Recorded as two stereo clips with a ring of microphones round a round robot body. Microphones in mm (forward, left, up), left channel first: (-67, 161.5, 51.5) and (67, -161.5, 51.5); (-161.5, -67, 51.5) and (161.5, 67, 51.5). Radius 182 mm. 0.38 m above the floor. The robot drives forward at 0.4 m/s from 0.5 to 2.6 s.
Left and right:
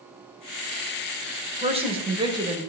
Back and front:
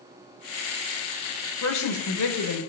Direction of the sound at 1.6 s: 135° right.